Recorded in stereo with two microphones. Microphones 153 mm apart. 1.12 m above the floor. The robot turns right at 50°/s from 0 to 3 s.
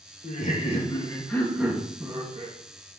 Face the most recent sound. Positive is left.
turn(degrees=-105)